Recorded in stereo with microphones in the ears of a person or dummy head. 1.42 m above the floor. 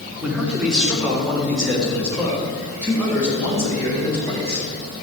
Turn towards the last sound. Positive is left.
turn(degrees=10)  # may be behind; listen again after turning